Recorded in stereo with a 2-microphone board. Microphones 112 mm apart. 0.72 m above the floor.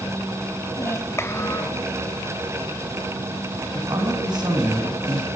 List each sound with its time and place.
0.8 s a child speaking: 25° left (ahead or behind), 2 m
3.7 s a man speaking: 40° right (ahead or behind), 5 m